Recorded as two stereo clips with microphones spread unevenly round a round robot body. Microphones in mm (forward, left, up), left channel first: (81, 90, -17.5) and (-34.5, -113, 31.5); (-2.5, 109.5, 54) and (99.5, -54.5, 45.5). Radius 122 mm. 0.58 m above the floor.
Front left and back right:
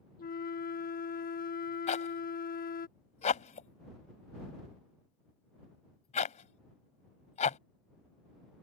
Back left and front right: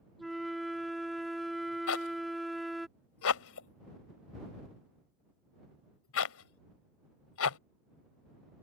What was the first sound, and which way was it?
A flute, 30° left.